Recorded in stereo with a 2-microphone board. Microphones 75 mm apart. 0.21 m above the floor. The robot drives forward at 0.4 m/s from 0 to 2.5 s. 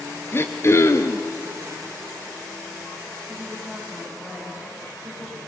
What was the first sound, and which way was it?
Throat clearing, 35° left (ahead or behind).